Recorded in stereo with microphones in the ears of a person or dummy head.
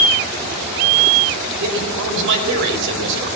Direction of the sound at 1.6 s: 75° right (ahead or behind).